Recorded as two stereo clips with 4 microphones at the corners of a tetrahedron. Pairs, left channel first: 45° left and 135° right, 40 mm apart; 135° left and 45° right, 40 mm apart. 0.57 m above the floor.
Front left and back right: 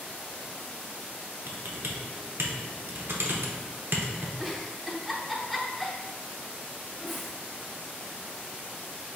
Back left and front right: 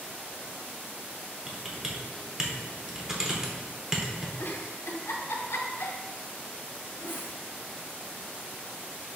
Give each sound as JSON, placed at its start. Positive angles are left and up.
{"t": 1.5, "sound": "typing on a keyboard", "azimuth_deg": -120, "distance_m": 0.7}
{"t": 4.4, "sound": "a giggle", "azimuth_deg": 135, "distance_m": 0.5}